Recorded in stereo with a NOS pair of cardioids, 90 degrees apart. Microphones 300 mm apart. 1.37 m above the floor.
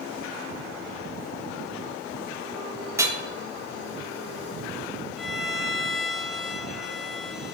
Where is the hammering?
10° right, 1.8 m.